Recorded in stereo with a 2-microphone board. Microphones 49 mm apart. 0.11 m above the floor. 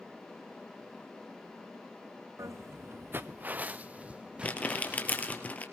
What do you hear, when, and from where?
2.4 s footsteps: 80° right, 0.6 m; by 5.4 s 15° right (ahead or behind), 2 m
4.4 s crumpling: 30° left (ahead or behind), 2.5 m